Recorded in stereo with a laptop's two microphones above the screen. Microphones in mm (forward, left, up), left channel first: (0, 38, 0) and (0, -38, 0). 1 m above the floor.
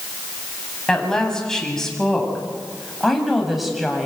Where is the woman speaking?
5° left (ahead or behind), 8 m; by 4.1 s 5° right (ahead or behind), 7 m.